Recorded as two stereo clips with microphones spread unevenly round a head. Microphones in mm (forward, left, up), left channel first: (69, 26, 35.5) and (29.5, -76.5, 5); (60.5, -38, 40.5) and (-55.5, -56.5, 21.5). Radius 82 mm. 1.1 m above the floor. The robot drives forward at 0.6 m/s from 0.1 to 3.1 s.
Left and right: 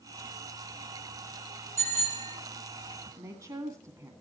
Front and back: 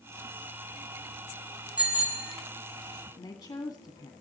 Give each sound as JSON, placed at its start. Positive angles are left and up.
{"t": 1.8, "sound": "a bicycle bell", "azimuth_deg": -90, "distance_m": 8.0}
{"t": 3.2, "sound": "a woman speaking", "azimuth_deg": -50, "distance_m": 2.0}